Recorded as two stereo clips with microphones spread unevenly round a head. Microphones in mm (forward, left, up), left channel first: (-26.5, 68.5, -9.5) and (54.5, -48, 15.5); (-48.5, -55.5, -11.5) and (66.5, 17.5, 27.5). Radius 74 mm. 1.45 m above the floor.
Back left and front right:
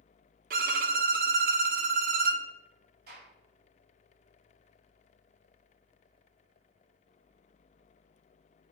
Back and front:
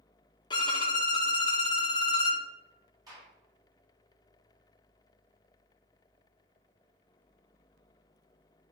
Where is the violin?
85° right, 0.9 m.